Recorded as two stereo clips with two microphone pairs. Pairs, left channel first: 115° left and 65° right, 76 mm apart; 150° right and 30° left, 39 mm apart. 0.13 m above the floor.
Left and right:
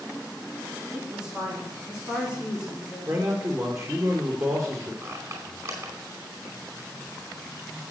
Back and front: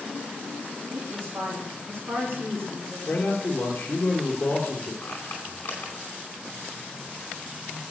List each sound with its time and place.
0.9 s a woman speaking: 10° left, 7 m
3.1 s a man speaking: 100° right, 3 m
5.0 s a squeak: 110° right, 4.5 m